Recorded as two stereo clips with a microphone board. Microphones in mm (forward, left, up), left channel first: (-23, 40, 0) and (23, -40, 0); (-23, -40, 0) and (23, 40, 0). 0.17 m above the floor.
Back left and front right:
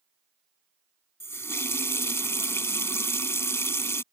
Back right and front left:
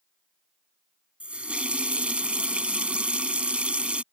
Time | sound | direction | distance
1.2 | a running tap | 125° left | ?